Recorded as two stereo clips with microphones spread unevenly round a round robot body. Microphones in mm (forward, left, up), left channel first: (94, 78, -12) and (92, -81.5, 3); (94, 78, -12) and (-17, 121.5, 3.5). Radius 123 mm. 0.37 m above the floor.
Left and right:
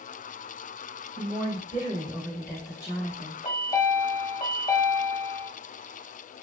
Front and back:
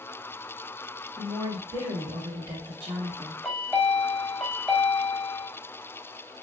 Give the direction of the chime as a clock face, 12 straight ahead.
10 o'clock.